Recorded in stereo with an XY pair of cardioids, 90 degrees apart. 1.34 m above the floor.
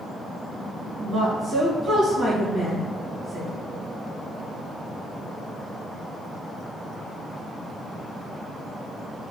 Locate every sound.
1.0 s a woman speaking: 40° right, 1.8 m